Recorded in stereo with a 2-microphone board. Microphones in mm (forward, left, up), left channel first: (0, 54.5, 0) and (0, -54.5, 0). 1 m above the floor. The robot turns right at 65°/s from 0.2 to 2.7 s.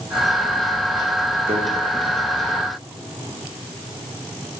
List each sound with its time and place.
1.5 s a microwave: 75° right (ahead or behind), 1.6 m; by 1.6 s 80° right, 1.6 m